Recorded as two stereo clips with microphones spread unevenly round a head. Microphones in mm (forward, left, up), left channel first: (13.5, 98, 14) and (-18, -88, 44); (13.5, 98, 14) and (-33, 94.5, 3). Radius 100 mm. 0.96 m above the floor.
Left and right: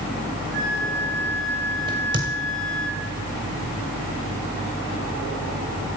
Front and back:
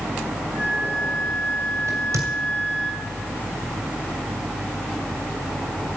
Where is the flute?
60° right, 5 m.